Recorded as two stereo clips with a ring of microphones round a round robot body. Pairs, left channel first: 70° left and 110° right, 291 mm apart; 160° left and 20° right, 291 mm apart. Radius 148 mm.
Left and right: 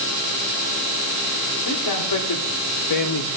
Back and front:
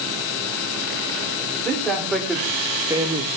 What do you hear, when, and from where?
1.6 s a man speaking: 75° left, 3 m; by 3.3 s 40° left, 1.2 m